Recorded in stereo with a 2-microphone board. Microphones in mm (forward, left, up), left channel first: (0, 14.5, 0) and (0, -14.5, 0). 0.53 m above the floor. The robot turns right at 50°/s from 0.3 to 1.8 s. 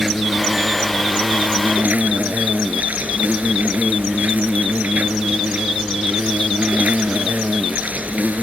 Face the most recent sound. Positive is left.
turn(degrees=-100)